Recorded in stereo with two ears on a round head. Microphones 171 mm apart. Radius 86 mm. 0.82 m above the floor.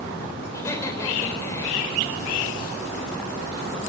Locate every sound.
0.5 s laughter: 15° left (ahead or behind), 3.5 m